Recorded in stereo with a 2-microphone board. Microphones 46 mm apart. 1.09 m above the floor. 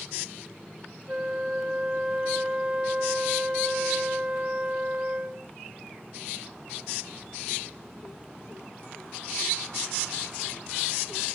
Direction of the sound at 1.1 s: 30° right (ahead or behind).